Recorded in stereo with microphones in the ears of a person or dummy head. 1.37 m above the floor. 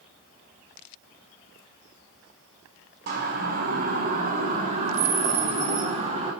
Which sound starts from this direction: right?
A siren, at 3.1 s.